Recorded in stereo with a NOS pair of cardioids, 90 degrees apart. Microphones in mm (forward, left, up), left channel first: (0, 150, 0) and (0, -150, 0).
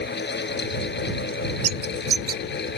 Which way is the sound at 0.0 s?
35° left.